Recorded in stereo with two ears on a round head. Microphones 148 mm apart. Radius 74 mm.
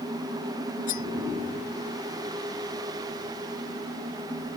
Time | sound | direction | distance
0.9 | cutlery clinking | 50° left (ahead or behind) | ?